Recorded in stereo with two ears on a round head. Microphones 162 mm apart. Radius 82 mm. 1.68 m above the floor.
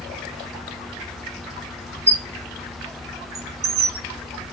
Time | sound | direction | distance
2.1 | a squeak | 35° right (ahead or behind) | 1.3 m